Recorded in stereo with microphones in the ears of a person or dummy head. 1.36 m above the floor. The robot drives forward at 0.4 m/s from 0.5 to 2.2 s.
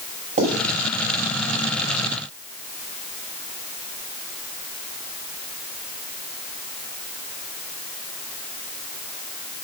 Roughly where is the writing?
Right.